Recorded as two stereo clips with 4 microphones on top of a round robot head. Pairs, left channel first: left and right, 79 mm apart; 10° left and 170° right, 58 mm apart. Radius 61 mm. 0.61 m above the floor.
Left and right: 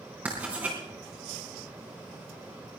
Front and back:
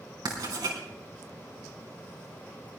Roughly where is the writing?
Behind.